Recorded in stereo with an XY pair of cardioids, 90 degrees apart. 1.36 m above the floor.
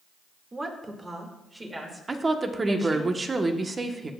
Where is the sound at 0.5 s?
30° right, 2.0 m; by 3.1 s 10° right, 3 m.